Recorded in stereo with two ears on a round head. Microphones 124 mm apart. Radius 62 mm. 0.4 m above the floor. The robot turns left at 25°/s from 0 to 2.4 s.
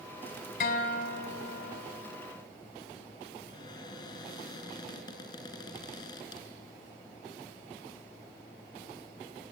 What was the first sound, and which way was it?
A guitar, 105° left.